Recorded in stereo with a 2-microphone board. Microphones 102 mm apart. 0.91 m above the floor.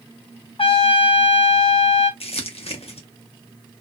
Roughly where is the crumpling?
Left.